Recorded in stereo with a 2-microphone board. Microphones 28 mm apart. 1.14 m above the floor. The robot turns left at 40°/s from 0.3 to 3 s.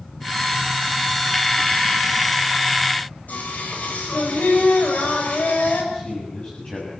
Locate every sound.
3.3 s singing: 70° left (ahead or behind), 6.5 m
5.9 s a man speaking: 40° left (ahead or behind), 6.5 m